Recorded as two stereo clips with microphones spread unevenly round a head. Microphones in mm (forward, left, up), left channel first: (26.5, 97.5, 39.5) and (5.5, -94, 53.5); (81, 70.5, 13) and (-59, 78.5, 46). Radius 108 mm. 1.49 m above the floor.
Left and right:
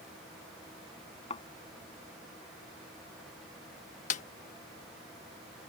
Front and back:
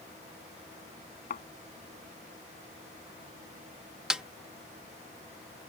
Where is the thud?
25° left.